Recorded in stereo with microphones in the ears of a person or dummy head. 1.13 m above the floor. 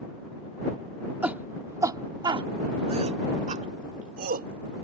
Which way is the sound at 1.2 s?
10° right (ahead or behind).